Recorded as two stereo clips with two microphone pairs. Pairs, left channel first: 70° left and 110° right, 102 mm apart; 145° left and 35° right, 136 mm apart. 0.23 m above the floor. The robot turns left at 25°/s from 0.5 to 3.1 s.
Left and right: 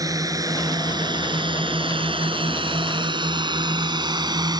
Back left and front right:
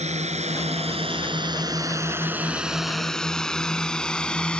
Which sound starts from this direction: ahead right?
A drone, at 0.0 s.